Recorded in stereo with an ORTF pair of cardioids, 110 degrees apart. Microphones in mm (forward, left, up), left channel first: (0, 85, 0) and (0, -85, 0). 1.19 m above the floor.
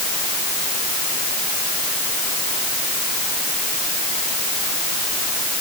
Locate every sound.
Only background noise.